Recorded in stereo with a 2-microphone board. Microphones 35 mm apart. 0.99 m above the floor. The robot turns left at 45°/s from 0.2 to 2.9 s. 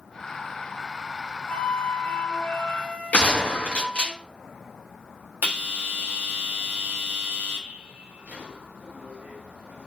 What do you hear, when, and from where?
1.5 s a flute: 120° left, 1.4 m; by 4.1 s 55° left, 1.4 m
3.1 s a gunshot: 50° left (ahead or behind), 1.4 m
5.4 s a bell: 80° right, 1.2 m